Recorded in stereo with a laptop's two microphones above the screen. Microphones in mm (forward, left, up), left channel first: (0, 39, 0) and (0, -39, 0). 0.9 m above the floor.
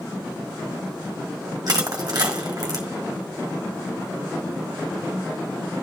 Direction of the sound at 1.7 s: 55° right (ahead or behind).